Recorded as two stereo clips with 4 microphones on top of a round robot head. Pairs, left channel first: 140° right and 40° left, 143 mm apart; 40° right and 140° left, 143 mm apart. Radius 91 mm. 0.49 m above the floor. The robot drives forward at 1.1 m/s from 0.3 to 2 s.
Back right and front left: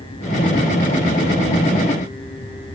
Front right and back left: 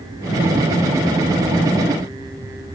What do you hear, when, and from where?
Only background noise.